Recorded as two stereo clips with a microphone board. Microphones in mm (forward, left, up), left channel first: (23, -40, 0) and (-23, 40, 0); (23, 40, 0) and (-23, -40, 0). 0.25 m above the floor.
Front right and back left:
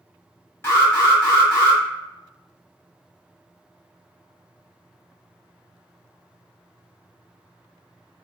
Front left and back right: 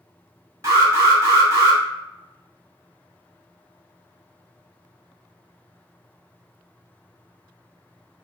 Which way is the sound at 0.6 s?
105° right.